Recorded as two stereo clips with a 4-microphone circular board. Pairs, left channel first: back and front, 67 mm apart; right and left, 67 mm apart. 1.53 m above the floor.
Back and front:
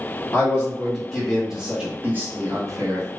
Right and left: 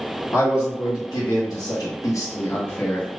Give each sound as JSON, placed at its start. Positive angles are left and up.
{"t": 0.3, "sound": "a man speaking", "azimuth_deg": -115, "distance_m": 1.3}